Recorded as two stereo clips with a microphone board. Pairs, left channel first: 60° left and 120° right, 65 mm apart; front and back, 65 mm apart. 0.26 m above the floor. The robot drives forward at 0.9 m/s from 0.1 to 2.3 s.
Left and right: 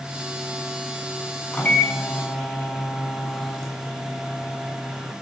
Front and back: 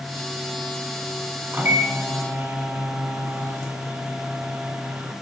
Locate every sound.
1.5 s a microwave: 130° left, 2 m; by 5.1 s 145° left, 2.5 m